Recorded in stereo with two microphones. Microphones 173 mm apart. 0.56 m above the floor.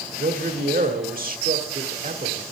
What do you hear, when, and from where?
0.2 s a man speaking: 55° right (ahead or behind), 1.5 m